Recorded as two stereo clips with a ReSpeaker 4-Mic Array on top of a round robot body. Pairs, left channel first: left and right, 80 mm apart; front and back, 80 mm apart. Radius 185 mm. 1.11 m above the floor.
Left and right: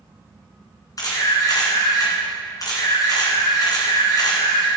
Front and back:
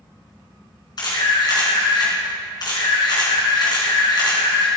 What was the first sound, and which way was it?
A camera shutter, 40° left.